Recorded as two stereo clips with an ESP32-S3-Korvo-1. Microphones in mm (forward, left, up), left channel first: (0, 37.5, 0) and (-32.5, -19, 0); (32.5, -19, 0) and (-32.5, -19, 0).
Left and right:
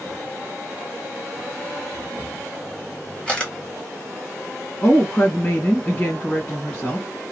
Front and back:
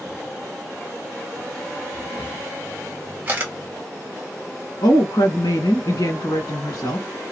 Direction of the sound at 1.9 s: 125° left.